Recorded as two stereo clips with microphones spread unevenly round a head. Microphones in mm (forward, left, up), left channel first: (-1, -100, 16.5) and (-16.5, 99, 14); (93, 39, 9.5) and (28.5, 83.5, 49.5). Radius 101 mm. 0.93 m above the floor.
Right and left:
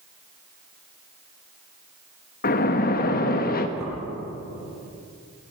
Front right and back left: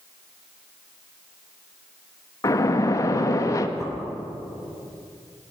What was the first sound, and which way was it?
A splash, 45° right.